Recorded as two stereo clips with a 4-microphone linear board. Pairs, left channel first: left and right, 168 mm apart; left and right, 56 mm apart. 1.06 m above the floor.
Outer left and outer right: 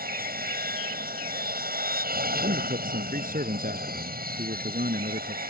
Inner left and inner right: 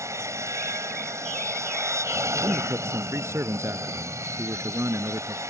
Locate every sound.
0.0 s an aircraft: 60° right (ahead or behind)
2.4 s a man speaking: 55° right (ahead or behind)